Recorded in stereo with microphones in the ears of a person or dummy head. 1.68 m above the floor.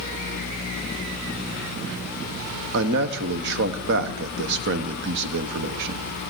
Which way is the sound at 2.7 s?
70° right (ahead or behind).